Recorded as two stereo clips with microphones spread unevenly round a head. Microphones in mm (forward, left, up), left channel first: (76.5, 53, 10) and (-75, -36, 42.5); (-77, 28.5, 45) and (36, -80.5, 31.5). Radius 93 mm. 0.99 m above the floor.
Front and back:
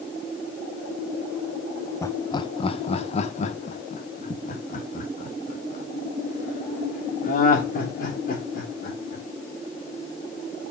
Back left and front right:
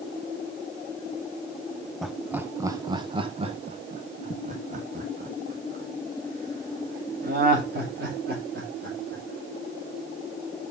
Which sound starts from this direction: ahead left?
Laughter, at 2.0 s.